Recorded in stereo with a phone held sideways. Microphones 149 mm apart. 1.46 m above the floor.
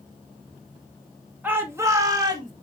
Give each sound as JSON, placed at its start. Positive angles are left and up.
{"t": 1.4, "sound": "a shout", "side_deg": -10, "distance_m": 2.5}